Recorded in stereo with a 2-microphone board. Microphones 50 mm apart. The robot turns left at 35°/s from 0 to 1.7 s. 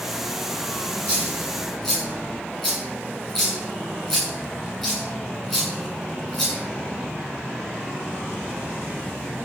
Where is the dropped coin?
30° left (ahead or behind), 8 m; by 6.6 s 5° left (ahead or behind), 8 m.